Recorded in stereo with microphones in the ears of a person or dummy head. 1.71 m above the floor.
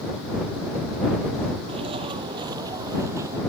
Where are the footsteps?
40° right (ahead or behind); by 3.4 s 25° right (ahead or behind).